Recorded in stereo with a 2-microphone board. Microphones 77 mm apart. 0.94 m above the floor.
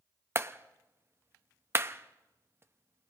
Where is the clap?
30° right (ahead or behind), 0.6 m.